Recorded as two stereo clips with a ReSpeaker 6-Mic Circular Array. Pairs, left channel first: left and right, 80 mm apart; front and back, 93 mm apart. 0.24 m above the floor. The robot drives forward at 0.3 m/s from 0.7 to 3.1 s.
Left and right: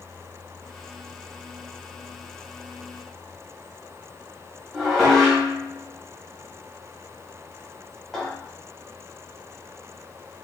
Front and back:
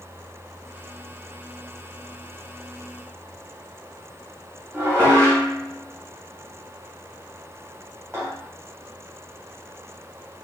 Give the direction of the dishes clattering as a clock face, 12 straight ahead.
6 o'clock.